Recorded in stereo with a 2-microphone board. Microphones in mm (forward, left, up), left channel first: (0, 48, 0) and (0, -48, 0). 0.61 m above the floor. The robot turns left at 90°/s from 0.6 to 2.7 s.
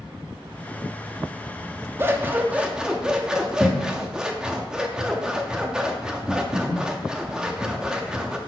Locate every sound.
2.0 s scissors: 25° right (ahead or behind), 0.8 m; by 8.4 s 10° right (ahead or behind), 0.8 m